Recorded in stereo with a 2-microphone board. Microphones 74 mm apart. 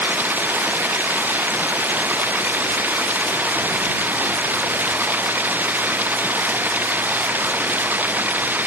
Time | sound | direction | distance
0.0 | running water | 25° right (ahead or behind) | ?